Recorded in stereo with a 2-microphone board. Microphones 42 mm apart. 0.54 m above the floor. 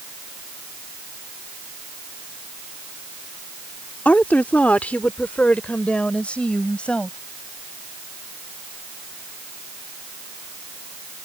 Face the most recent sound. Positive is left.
turn(degrees=25)  # may be behind; listen again after turning